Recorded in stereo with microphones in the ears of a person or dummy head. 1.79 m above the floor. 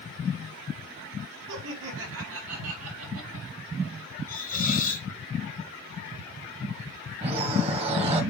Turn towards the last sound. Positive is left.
turn(degrees=-35)  # may be behind; listen again after turning